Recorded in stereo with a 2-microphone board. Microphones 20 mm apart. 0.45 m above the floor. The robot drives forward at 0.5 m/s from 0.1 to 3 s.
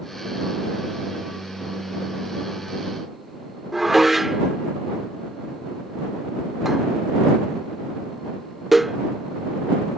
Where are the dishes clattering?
5° right (ahead or behind).